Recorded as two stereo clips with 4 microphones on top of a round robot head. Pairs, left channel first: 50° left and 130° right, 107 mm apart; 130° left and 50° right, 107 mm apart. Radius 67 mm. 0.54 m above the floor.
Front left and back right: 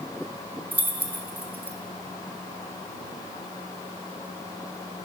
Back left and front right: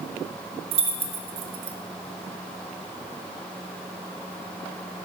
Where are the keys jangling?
60° right, 0.9 m.